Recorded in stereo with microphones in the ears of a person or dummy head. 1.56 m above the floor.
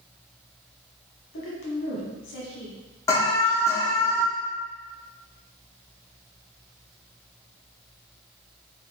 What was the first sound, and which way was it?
A woman speaking, 70° left (ahead or behind).